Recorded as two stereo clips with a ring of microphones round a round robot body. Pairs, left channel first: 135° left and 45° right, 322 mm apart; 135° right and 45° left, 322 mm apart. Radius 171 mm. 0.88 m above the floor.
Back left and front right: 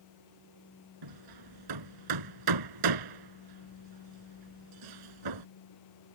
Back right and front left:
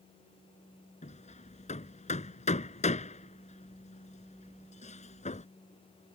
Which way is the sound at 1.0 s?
65° right.